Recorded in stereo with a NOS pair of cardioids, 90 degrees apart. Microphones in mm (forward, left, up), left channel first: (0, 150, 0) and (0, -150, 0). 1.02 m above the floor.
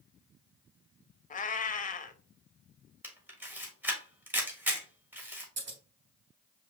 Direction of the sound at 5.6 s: 40° right.